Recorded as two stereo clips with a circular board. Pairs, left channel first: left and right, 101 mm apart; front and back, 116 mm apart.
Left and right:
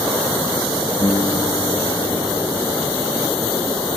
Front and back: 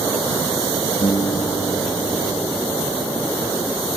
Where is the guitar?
40° left.